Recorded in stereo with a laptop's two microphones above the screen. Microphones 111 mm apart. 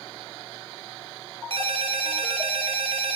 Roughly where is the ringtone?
Right.